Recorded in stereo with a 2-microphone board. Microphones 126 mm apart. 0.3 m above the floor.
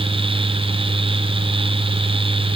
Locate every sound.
Only background noise.